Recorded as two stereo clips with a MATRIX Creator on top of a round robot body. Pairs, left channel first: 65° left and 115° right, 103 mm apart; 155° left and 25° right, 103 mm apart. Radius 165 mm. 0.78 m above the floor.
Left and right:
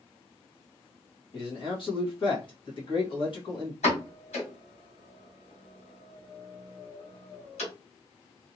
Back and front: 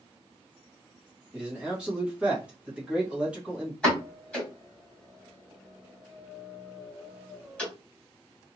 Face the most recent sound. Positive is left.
turn(degrees=75)